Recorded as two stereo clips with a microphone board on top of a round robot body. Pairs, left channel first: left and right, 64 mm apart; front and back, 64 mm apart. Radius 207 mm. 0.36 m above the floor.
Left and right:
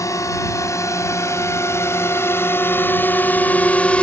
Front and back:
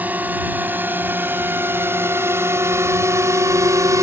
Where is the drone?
120° left; by 4.0 s 160° left.